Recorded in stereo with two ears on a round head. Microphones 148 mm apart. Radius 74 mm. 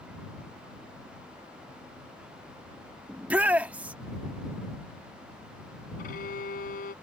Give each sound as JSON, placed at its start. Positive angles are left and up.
{"t": 3.1, "sound": "a shout", "side_deg": -10}
{"t": 6.0, "sound": "a violin", "side_deg": 55}